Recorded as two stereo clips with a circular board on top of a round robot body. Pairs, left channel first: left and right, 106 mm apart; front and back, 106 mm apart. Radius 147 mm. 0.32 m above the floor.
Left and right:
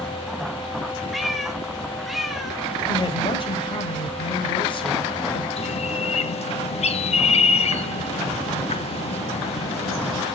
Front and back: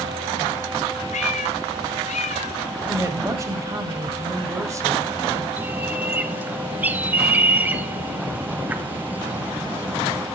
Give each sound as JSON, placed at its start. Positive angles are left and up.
{"t": 1.1, "sound": "a cat meowing", "azimuth_deg": 0, "distance_m": 0.8}
{"t": 2.9, "sound": "a woman speaking", "azimuth_deg": 125, "distance_m": 2.0}
{"t": 5.6, "sound": "a bird", "azimuth_deg": 105, "distance_m": 0.9}